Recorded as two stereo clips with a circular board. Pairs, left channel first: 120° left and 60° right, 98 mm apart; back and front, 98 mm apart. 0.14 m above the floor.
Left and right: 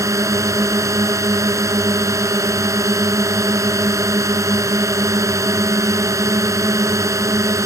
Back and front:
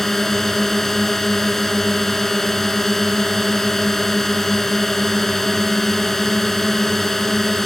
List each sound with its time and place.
0.0 s a drone: 95° right